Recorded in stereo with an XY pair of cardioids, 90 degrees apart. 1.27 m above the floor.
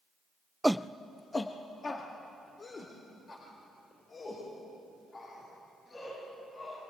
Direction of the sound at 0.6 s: 10° right.